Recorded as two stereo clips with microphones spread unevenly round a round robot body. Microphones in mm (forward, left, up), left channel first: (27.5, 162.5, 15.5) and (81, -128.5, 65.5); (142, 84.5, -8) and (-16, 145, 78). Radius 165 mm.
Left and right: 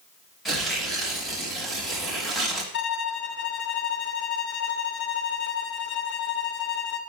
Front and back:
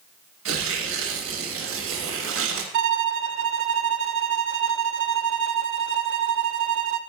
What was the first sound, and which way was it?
Tearing paper, 170° right.